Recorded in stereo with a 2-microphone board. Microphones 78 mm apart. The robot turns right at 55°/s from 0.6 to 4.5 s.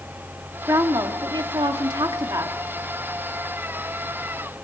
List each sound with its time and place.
0.7 s a woman speaking: 140° right, 2.5 m; by 2.6 s 35° right, 2.5 m